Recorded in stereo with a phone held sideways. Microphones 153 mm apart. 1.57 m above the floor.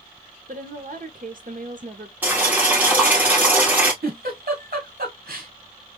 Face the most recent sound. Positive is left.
turn(degrees=-80)